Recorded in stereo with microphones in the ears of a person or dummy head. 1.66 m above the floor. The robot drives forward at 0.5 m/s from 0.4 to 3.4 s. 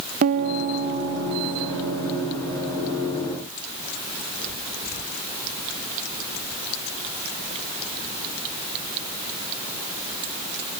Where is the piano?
50° right (ahead or behind), 1.0 m; by 2.3 s 25° right (ahead or behind), 1.7 m.